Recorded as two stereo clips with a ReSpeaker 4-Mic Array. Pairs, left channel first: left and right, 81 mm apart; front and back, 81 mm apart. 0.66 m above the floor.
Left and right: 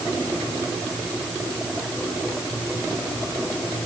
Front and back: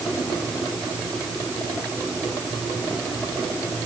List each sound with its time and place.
Only background noise.